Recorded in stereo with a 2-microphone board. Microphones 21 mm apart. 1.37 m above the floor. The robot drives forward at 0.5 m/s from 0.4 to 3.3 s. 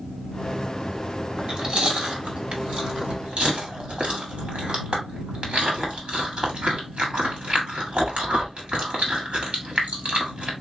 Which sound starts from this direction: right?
Chewing, at 1.4 s.